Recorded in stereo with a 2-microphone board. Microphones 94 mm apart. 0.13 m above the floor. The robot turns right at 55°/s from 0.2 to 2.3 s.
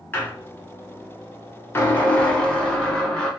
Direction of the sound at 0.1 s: 40° left.